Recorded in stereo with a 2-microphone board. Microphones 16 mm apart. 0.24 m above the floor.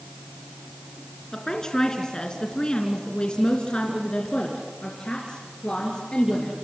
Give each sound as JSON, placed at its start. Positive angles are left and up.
{"t": 1.3, "sound": "a woman speaking", "side_deg": 35, "distance_m": 3.0}